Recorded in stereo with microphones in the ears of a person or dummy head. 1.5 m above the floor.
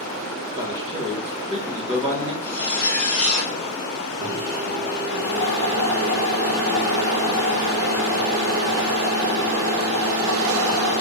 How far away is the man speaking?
About 1.2 m.